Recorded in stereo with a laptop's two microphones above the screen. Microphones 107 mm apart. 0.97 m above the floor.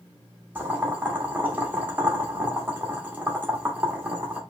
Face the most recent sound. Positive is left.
turn(degrees=-15)  # may be behind; listen again after turning